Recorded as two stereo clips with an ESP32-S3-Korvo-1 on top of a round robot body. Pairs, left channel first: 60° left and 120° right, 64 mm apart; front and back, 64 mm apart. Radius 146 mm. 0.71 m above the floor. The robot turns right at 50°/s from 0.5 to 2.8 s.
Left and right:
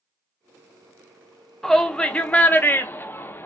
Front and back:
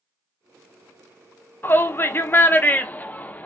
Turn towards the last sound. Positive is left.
turn(degrees=40)